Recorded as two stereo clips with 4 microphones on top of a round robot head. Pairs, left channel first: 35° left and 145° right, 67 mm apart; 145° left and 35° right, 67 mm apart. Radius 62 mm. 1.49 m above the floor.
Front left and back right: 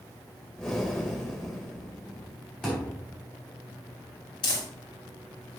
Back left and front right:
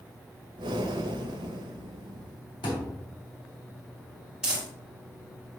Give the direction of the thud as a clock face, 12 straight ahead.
8 o'clock.